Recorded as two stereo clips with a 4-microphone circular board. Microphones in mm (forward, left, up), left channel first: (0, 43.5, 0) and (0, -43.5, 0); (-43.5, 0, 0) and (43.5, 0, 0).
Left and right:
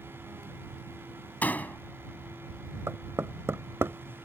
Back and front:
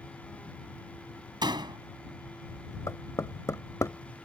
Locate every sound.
1.4 s a door slam: 20° left
2.9 s knocking: 140° right